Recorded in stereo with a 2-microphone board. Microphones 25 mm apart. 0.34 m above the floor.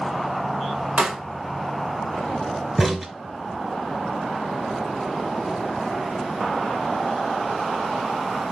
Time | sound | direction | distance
1.0 | a pop | 50° right (ahead or behind) | 1.0 m
2.8 | a crack | 5° right (ahead or behind) | 0.7 m